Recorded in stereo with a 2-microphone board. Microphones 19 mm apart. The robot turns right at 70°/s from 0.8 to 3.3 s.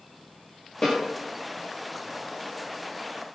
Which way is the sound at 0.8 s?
35° left (ahead or behind).